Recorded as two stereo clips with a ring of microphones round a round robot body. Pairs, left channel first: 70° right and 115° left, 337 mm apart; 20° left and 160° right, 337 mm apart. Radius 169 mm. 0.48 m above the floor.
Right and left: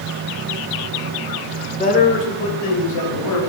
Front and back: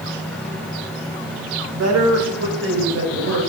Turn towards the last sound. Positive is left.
turn(degrees=-100)